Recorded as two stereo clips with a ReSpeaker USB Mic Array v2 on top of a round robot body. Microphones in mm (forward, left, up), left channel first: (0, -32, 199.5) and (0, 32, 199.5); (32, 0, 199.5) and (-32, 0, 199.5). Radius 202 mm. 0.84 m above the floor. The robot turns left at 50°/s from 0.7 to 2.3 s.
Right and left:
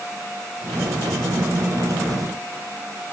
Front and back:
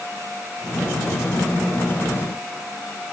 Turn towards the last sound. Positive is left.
No sound to turn to.